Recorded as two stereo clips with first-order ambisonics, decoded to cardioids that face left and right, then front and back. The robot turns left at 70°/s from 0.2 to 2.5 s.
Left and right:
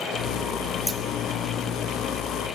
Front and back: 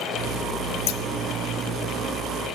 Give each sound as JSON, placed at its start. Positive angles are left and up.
{"t": 0.9, "sound": "scissors", "azimuth_deg": -5, "distance_m": 0.8}